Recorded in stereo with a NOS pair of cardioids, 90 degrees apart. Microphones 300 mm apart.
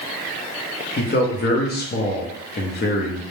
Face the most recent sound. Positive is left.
turn(degrees=35)